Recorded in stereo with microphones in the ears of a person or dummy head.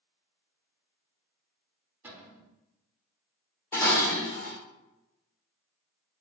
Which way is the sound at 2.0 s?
10° right (ahead or behind).